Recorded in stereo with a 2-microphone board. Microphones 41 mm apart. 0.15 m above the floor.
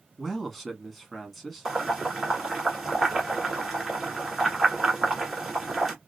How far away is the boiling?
About 1.3 m.